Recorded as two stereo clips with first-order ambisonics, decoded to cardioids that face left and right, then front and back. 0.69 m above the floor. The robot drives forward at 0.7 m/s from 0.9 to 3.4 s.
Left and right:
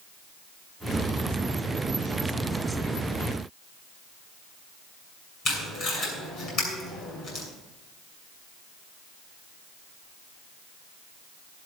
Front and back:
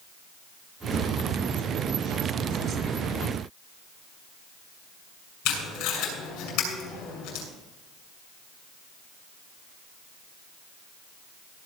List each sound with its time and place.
5.5 s tape being pulled: 40° left, 7.5 m